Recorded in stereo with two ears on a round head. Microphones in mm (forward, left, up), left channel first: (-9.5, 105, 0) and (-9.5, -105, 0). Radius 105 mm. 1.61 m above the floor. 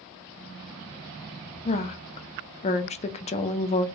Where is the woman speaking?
30° left (ahead or behind), 0.6 m.